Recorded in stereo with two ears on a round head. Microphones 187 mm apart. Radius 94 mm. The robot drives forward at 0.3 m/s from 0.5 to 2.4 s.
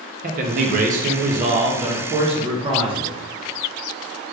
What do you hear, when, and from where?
0.2 s a man speaking: 40° right (ahead or behind), 0.5 m; by 3.2 s 25° right (ahead or behind), 0.7 m